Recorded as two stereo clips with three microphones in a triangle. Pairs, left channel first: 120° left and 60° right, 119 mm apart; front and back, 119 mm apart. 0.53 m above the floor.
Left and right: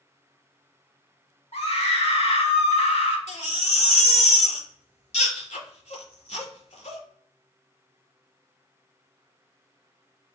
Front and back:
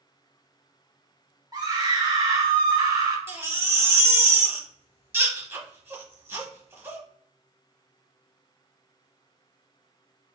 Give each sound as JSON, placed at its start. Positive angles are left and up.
{"t": 1.5, "sound": "a scream", "azimuth_deg": 125, "distance_m": 1.2}
{"t": 3.3, "sound": "a baby crying", "azimuth_deg": 110, "distance_m": 1.1}